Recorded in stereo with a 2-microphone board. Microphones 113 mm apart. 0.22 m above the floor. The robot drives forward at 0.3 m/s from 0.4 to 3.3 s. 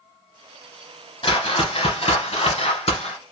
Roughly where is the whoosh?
Left.